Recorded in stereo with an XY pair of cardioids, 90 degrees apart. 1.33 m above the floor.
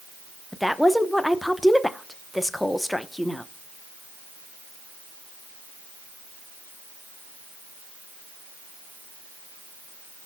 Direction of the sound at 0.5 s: 5° left.